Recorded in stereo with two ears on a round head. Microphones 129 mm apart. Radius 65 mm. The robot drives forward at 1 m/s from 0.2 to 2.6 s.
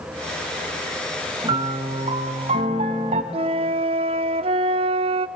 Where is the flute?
40° right (ahead or behind), 0.5 m.